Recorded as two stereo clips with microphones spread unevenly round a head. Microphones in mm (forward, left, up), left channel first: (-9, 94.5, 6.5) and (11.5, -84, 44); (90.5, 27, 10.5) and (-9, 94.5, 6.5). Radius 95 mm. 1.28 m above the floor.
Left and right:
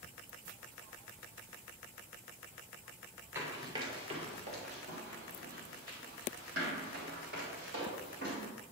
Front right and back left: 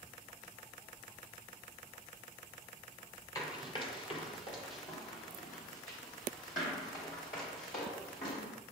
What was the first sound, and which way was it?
Running footsteps, 50° right.